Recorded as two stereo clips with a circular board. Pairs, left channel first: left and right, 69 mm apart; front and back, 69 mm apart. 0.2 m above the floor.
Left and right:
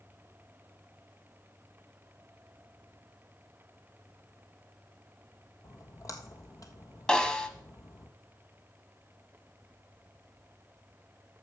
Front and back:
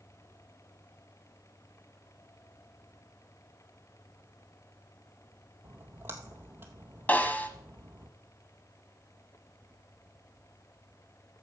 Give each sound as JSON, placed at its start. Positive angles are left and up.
{"t": 5.6, "sound": "a splash", "azimuth_deg": 125, "distance_m": 1.2}
{"t": 7.1, "sound": "a snare drum", "azimuth_deg": 25, "distance_m": 1.1}